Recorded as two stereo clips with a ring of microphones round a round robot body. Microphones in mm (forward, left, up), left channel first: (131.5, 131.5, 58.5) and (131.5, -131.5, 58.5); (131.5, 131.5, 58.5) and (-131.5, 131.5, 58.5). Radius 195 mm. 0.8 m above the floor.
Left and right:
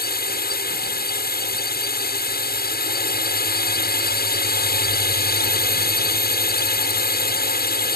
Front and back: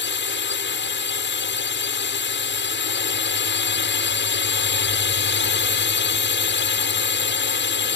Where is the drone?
40° left.